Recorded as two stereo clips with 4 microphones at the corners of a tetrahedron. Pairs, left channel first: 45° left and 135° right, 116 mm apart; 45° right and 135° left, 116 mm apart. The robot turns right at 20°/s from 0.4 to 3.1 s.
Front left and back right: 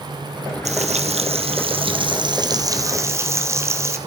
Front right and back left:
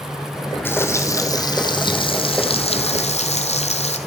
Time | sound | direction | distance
0.7 | frying | 115° right | 1.7 m